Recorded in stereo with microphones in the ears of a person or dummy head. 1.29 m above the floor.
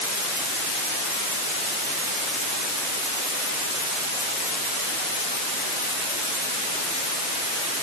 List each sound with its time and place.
Only background noise.